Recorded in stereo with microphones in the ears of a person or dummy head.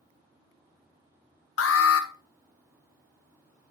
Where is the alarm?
75° left (ahead or behind), 1.1 m.